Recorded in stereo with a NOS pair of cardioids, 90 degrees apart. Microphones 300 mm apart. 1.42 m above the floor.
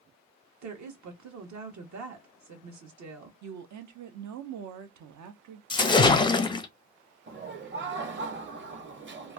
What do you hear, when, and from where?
0.6 s a woman speaking: 65° right, 1.4 m
3.4 s a woman speaking: 65° right, 0.8 m
5.7 s a splash: 15° left, 0.5 m
7.3 s laughter: 35° right, 1.1 m